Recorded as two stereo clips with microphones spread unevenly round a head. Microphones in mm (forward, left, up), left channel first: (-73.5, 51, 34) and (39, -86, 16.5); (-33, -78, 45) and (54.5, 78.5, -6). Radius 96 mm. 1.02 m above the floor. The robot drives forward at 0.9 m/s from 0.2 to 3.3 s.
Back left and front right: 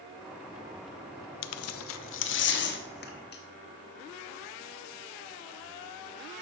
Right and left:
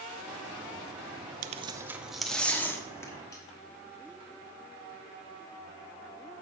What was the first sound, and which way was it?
Tearing paper, 115° left.